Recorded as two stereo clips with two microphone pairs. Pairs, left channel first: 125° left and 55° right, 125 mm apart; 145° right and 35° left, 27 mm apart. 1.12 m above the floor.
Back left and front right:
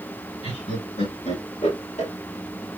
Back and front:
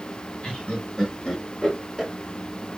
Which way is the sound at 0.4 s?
165° left.